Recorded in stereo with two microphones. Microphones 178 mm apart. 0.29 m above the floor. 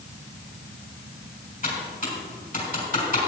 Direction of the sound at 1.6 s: 50° left (ahead or behind).